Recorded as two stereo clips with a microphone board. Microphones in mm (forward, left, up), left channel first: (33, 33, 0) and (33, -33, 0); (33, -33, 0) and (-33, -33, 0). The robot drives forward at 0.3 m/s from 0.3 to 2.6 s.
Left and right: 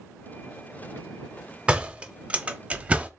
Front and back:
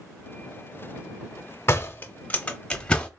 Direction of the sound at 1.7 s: 20° right.